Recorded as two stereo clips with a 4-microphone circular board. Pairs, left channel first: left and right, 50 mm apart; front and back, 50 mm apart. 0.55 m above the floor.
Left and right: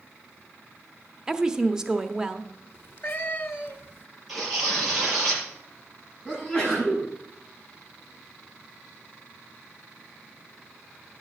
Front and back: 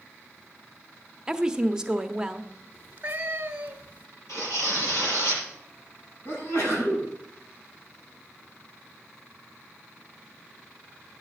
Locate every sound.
1.3 s a woman speaking: 140° right, 0.7 m
2.7 s a cat meowing: 125° left, 1.2 m
4.3 s tearing paper: straight ahead, 7 m
6.2 s a sneeze: 15° left, 5.5 m